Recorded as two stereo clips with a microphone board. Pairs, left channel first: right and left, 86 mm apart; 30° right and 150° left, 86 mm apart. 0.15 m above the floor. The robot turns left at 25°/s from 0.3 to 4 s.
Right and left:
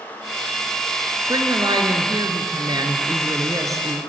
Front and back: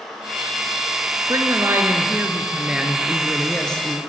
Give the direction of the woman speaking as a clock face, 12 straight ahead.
8 o'clock.